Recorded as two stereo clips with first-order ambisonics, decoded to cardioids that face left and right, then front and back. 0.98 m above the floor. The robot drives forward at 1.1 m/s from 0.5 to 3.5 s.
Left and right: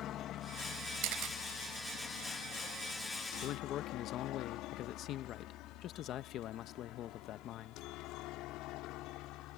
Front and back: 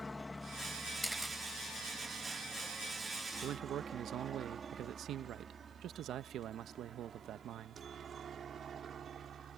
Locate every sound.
0.0 s a helicopter: 75° left; by 9.6 s 120° left
1.0 s a camera shutter: 85° right; by 1.4 s 100° right
3.4 s a man speaking: 130° left; by 7.8 s 135° left